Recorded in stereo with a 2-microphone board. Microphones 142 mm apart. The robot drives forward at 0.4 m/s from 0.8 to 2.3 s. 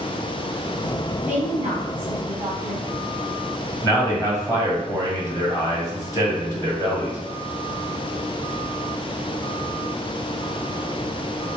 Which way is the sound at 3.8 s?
25° left (ahead or behind).